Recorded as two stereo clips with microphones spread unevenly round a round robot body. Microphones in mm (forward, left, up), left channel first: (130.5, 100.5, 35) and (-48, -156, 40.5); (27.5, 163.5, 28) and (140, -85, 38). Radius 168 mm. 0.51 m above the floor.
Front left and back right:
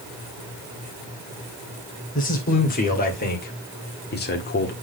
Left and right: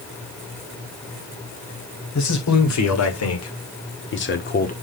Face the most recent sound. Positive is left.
turn(degrees=85)